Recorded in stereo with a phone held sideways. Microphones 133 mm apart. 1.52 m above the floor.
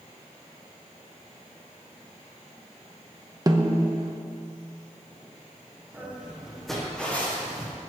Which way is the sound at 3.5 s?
30° right (ahead or behind).